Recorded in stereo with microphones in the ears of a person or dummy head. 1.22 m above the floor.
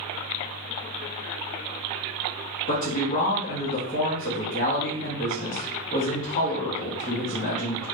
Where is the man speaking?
45° left (ahead or behind), 0.9 m.